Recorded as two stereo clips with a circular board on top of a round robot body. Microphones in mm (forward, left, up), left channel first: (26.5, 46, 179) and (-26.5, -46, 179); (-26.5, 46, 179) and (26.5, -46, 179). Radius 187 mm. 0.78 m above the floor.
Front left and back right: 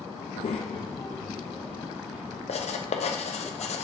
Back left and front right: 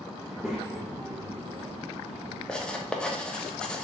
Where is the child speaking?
40° left, 0.6 m; by 2.4 s 45° right, 1.1 m.